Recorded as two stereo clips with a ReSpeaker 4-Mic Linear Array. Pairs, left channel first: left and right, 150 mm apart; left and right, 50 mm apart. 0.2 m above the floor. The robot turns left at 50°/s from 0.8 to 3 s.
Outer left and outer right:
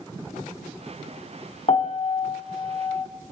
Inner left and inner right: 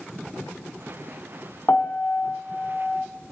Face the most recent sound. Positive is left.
turn(degrees=45)